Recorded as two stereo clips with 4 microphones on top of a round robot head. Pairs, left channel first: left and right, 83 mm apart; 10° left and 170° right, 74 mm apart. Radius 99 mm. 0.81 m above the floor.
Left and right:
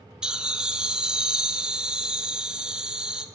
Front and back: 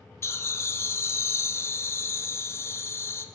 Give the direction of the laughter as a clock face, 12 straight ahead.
12 o'clock.